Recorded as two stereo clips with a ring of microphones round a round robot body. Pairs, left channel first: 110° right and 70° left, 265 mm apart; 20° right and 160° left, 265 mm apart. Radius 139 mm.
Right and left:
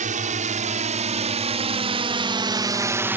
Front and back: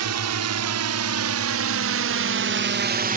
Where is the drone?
130° left; by 3.2 s 145° left.